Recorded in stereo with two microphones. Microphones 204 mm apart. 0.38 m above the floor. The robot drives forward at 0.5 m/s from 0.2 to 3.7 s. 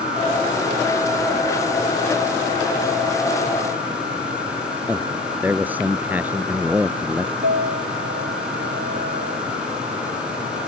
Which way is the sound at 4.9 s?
10° right (ahead or behind).